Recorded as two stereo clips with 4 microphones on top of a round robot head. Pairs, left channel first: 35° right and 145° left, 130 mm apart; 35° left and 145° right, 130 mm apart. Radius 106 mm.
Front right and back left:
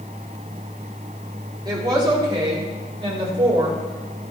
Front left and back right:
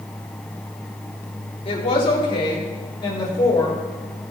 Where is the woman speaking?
85° left, 3.5 m; by 3.8 s 95° left, 5 m.